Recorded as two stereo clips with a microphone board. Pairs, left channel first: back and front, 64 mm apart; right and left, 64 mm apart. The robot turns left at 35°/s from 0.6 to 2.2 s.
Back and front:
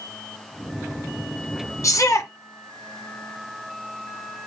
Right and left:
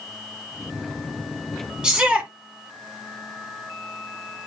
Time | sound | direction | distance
1.8 | a shout | 165° left | 2.0 m